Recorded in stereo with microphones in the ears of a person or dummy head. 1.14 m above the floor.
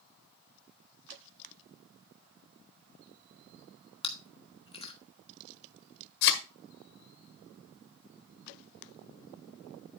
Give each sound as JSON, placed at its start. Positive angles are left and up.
{"t": 4.0, "sound": "chewing", "side_deg": 30, "distance_m": 1.3}
{"t": 6.2, "sound": "a thud", "side_deg": 60, "distance_m": 1.5}